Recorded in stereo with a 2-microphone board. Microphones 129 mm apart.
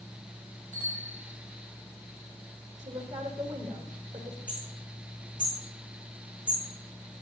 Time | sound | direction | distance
0.7 | a bicycle bell | 30° right (ahead or behind) | 7 m
2.8 | a woman speaking | 60° right (ahead or behind) | 6 m
4.5 | hammering | 80° right | 9.5 m